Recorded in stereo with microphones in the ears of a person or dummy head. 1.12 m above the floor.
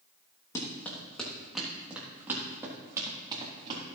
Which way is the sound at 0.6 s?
15° left (ahead or behind).